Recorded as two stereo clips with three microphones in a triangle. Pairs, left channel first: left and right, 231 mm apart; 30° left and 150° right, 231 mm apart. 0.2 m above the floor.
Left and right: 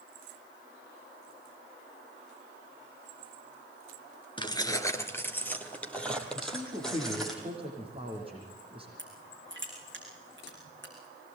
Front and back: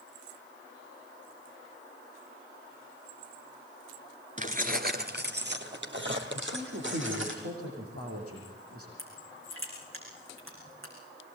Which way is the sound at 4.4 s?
160° left.